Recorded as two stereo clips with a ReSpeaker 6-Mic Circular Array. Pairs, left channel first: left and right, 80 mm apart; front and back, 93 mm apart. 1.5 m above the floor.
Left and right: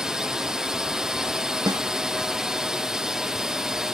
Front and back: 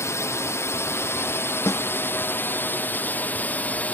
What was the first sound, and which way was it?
A drone, 15° right.